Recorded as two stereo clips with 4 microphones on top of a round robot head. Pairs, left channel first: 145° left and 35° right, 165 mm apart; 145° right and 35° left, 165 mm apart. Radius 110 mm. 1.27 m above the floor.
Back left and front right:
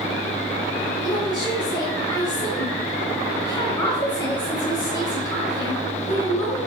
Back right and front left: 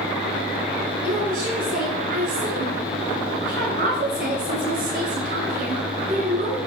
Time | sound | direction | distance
1.0 | a woman speaking | 80° left | 7.5 m